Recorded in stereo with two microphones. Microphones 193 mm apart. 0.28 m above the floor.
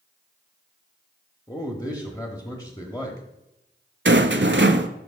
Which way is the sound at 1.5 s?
20° left (ahead or behind).